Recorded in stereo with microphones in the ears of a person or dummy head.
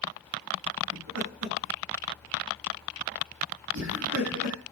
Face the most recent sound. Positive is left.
turn(degrees=-80)